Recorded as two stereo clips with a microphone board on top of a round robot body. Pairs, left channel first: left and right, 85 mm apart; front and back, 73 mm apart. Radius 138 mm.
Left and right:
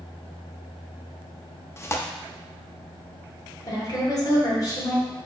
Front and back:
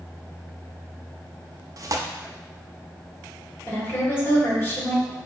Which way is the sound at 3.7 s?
55° left.